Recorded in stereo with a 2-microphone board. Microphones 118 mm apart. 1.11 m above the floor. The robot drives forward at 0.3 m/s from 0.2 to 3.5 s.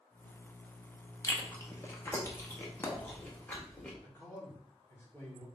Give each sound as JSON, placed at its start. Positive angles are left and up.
{"t": 1.2, "sound": "chewing", "side_deg": 25, "distance_m": 0.8}
{"t": 4.0, "sound": "a man speaking", "side_deg": 25, "distance_m": 1.9}